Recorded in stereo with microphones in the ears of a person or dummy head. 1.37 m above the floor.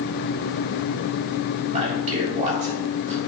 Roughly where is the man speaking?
Right.